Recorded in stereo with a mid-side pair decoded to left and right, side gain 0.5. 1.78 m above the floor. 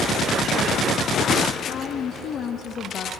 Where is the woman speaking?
55° left, 0.8 m.